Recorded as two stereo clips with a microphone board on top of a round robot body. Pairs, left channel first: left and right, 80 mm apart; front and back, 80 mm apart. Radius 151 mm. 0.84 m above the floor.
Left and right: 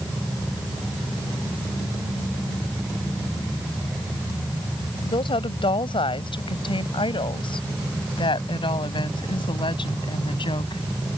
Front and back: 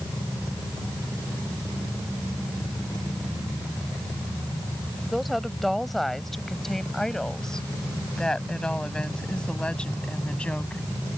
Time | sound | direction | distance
5.0 | a woman speaking | 90° left | ?